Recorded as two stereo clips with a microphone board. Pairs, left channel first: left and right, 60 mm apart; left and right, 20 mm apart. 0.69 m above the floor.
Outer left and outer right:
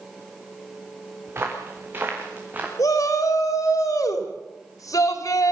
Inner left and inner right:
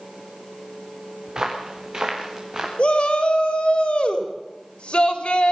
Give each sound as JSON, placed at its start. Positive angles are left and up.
{"t": 1.3, "sound": "footsteps", "side_deg": -40, "distance_m": 4.0}
{"t": 2.8, "sound": "a shout", "side_deg": 70, "distance_m": 3.5}